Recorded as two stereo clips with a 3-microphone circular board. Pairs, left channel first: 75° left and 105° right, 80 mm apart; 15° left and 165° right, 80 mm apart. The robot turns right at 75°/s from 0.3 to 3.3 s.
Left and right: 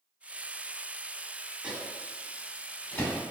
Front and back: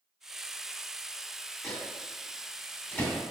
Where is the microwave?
45° right, 0.8 m; by 3.2 s 70° left, 0.8 m.